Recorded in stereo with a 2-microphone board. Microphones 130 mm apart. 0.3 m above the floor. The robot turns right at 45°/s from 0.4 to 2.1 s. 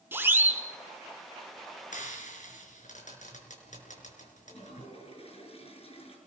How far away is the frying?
About 5 m.